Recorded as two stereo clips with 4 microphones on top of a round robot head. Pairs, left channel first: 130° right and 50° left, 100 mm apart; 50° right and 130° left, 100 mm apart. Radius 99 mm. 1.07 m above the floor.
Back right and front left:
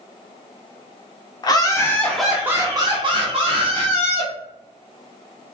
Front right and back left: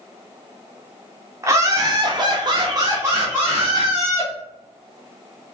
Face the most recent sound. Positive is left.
turn(degrees=55)